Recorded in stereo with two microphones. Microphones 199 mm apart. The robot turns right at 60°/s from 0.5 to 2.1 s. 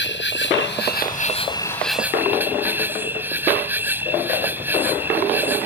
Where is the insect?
95° left; by 5.7 s 170° right.